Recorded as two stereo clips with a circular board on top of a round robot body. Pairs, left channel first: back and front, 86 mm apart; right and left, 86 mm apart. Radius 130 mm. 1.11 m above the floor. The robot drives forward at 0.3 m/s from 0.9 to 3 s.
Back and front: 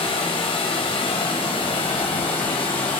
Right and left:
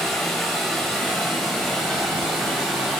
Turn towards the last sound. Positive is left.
turn(degrees=180)